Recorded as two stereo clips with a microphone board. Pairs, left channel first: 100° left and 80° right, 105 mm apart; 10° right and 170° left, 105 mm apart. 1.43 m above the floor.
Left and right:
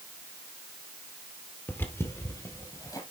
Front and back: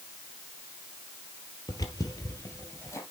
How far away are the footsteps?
About 2 m.